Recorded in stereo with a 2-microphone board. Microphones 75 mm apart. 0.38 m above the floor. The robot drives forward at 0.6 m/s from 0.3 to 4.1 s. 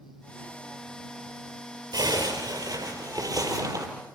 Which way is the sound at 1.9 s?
65° right (ahead or behind).